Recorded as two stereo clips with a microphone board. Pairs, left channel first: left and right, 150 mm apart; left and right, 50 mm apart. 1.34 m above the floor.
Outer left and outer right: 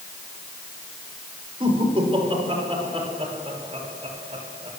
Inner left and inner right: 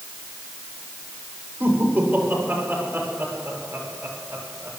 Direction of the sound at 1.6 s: 40° right (ahead or behind).